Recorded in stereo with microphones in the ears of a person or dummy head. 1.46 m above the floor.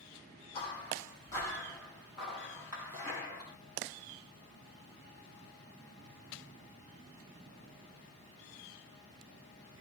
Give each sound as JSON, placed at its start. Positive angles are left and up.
{"t": 0.5, "sound": "footsteps", "side_deg": 30, "distance_m": 2.0}